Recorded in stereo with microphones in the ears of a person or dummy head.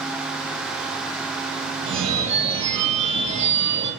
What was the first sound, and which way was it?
A phone ringing, 30° right (ahead or behind).